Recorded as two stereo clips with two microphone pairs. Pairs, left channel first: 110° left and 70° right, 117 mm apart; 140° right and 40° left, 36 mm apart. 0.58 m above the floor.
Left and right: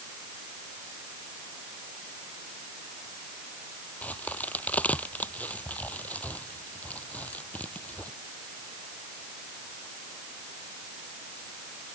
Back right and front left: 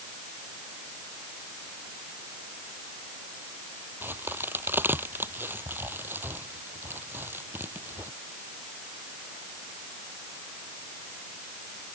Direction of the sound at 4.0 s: 30° left.